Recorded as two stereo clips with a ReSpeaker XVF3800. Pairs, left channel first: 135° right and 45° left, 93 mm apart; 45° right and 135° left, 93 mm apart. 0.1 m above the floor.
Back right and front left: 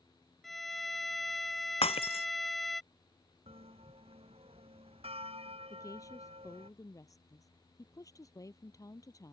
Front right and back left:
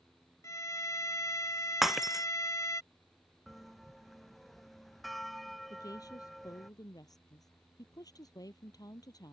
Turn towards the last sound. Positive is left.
turn(degrees=-85)